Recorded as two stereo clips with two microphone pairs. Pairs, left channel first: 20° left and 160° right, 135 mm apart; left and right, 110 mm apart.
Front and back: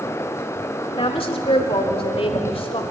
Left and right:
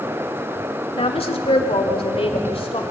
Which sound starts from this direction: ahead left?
A woman speaking, at 0.9 s.